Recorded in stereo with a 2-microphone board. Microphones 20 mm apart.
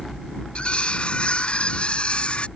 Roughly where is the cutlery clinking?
Left.